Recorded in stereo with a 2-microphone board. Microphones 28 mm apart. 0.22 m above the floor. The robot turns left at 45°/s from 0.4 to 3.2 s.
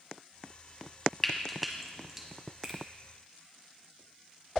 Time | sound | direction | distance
1.2 | frying | 10° left (ahead or behind) | 1.2 m
2.6 | a finger snap | 20° right (ahead or behind) | 1.9 m